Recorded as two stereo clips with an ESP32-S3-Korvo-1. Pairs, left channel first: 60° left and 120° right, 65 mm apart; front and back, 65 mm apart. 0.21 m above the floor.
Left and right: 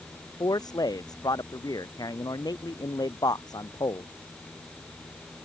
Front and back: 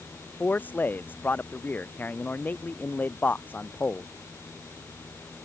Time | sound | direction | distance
0.4 | a man speaking | 60° left | ?